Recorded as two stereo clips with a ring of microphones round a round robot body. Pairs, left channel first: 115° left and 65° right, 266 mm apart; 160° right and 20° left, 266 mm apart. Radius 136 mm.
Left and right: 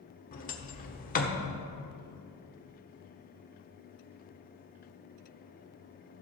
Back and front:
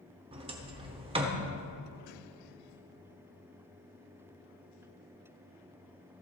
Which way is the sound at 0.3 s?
80° left.